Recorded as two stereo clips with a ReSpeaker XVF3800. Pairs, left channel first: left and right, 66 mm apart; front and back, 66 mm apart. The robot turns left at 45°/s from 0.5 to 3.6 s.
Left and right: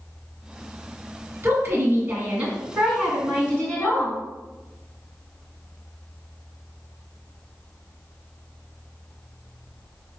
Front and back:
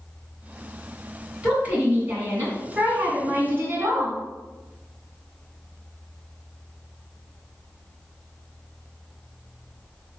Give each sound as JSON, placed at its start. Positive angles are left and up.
{"t": 1.4, "sound": "a woman speaking", "azimuth_deg": -115, "distance_m": 1.9}